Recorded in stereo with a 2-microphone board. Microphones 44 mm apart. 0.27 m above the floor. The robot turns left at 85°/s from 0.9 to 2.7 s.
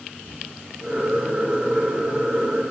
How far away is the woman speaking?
No woman speaking in this recording.